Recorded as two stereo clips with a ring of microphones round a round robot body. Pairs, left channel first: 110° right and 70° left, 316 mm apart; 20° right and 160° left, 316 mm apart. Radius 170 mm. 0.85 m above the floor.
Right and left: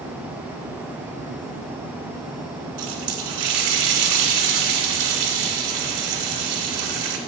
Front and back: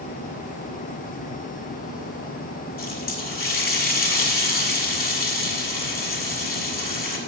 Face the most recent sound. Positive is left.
turn(degrees=40)